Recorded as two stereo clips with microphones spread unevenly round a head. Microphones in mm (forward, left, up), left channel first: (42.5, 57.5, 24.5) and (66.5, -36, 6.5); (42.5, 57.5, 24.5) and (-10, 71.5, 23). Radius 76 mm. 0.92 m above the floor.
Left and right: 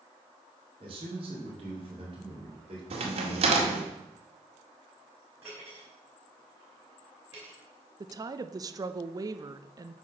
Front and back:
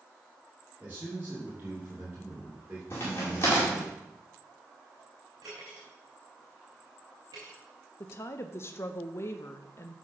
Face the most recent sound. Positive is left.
turn(degrees=-50)